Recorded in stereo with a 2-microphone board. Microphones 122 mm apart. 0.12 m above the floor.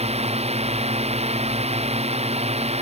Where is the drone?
65° right (ahead or behind).